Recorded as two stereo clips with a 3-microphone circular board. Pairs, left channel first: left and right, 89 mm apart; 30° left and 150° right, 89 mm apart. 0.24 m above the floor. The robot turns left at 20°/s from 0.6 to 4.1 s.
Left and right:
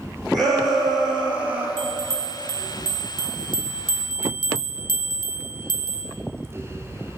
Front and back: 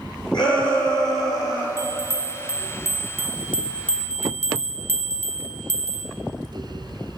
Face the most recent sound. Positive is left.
turn(degrees=100)